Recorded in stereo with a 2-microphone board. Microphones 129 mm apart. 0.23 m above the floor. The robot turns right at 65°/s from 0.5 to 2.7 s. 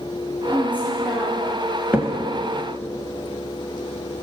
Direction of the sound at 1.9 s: 15° right (ahead or behind).